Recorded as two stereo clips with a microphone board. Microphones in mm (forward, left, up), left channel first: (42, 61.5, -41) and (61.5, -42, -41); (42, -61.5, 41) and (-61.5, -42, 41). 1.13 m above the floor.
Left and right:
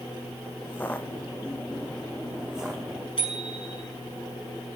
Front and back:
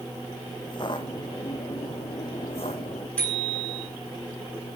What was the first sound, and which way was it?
Footsteps, 30° left.